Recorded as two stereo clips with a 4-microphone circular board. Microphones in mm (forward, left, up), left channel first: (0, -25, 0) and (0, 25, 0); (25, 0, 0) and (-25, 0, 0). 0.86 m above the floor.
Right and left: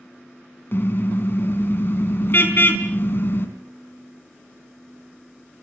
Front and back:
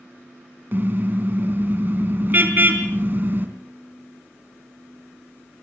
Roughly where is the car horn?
Behind right.